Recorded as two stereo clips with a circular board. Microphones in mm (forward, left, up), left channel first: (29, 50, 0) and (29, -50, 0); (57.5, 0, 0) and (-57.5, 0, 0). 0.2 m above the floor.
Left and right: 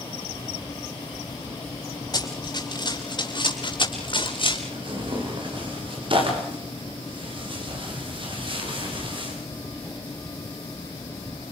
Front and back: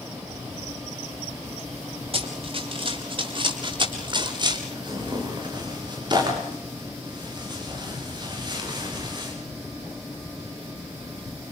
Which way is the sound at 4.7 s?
125° right.